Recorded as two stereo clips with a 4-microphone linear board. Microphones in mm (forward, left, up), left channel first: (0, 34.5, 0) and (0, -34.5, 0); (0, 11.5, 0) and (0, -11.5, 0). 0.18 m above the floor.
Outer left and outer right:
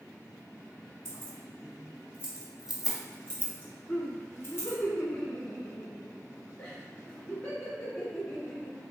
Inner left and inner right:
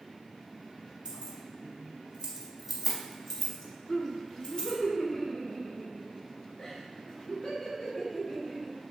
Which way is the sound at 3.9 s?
10° left (ahead or behind).